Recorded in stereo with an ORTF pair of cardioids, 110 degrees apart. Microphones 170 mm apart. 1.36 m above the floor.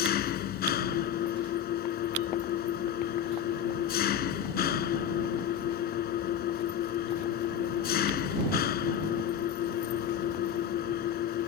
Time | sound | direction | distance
0.0 | an engine running | 65° left | ?